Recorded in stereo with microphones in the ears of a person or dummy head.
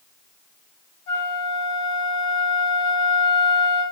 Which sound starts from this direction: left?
A flute, at 1.1 s.